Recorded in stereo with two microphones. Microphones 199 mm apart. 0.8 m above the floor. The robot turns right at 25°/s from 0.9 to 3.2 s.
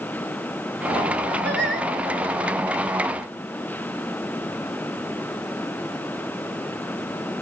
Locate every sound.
1.4 s singing: 65° right (ahead or behind), 4 m; by 1.9 s 75° right (ahead or behind), 4 m